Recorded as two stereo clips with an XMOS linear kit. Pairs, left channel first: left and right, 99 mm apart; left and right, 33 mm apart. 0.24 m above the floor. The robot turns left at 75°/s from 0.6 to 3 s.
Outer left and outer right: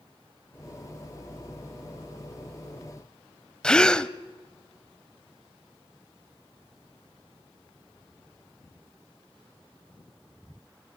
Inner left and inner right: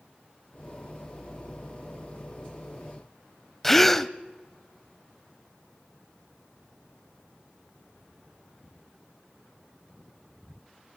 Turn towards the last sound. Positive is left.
turn(degrees=10)  # may be behind; listen again after turning